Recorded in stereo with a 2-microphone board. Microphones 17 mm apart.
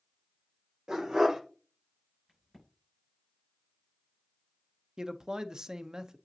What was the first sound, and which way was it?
A dog barking, 50° right (ahead or behind).